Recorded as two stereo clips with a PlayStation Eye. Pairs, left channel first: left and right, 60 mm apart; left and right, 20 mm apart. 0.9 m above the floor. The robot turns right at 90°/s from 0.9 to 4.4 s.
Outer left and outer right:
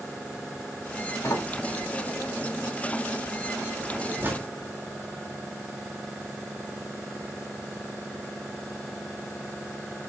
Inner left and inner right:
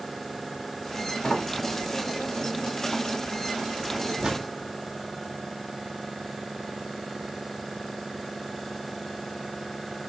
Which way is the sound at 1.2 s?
45° left (ahead or behind).